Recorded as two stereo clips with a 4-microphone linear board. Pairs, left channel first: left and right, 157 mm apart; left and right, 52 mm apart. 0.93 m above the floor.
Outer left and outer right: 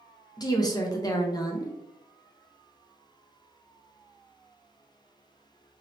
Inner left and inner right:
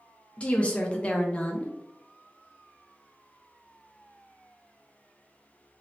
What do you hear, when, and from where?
0.4 s a woman speaking: 25° left (ahead or behind), 0.6 m